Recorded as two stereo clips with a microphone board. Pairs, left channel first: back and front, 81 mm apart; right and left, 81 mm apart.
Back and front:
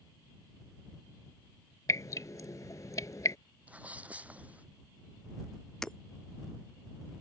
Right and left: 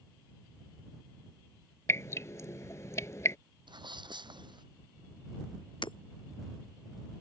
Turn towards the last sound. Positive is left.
turn(degrees=-100)